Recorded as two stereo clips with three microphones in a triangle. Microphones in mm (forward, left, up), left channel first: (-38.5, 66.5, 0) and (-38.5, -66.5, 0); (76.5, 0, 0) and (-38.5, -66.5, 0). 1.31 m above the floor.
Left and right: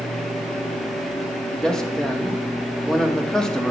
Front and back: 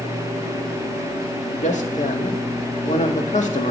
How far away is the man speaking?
About 1.8 m.